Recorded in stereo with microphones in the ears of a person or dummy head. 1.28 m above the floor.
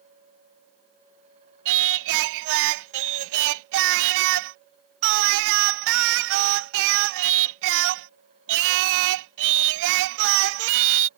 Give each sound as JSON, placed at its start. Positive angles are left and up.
{"t": 1.6, "sound": "singing", "side_deg": -70}